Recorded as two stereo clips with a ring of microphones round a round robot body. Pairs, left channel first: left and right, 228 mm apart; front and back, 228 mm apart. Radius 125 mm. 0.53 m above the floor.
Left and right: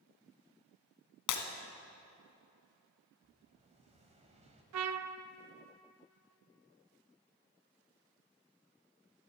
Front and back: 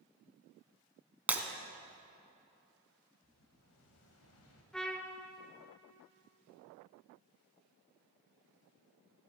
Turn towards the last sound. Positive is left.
turn(degrees=-85)